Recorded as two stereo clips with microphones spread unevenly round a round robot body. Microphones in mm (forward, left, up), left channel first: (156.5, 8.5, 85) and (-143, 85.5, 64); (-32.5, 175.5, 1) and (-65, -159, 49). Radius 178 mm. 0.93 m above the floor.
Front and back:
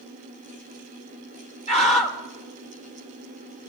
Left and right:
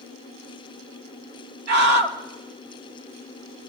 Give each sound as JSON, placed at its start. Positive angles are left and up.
{"t": 1.7, "sound": "a scream", "azimuth_deg": -85, "distance_m": 1.8}